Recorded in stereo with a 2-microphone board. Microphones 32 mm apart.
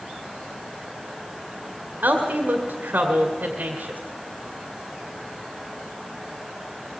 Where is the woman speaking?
65° right (ahead or behind), 2.5 m.